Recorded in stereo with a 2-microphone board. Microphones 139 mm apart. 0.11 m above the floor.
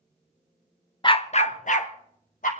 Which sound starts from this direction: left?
A dog barking, at 1.0 s.